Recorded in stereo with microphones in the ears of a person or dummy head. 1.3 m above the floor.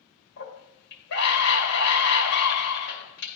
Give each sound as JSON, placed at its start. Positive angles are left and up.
{"t": 0.4, "sound": "a scream", "side_deg": 50, "distance_m": 2.0}